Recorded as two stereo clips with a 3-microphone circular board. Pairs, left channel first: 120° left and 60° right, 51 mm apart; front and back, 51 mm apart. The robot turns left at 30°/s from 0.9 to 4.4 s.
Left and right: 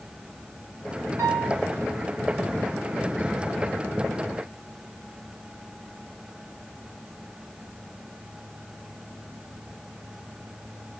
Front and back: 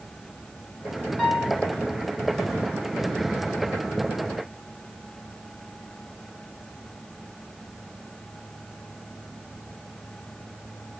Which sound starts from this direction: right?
A piano, at 1.2 s.